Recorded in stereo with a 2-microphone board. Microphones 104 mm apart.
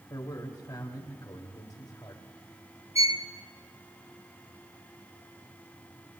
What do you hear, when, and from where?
0.1 s a man speaking: 35° left (ahead or behind), 2.5 m
3.0 s a violin: 85° left, 0.8 m